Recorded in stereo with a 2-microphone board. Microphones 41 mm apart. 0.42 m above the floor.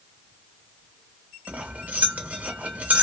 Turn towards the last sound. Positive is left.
turn(degrees=-35)  # may be behind; listen again after turning